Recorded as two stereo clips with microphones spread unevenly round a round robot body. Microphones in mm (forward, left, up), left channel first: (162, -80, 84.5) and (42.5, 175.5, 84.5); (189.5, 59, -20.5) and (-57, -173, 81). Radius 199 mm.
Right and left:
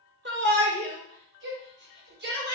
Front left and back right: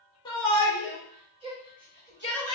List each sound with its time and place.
0.2 s a shout: 95° left, 1.2 m; by 2.5 s 160° left, 1.5 m